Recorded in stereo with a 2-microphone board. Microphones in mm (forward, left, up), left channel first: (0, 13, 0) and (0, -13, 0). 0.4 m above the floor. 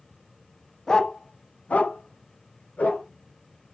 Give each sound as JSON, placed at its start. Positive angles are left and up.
{"t": 0.9, "sound": "a dog barking", "side_deg": 20, "distance_m": 0.5}